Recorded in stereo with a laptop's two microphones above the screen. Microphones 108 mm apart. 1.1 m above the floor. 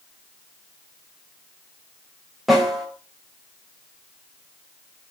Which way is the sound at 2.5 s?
Centre (ahead or behind).